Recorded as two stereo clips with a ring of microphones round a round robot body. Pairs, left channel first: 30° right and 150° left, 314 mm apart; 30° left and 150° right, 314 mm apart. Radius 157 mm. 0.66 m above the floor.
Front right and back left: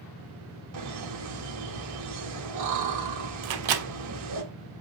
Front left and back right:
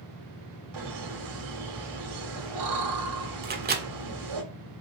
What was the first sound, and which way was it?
Laughter, 175° right.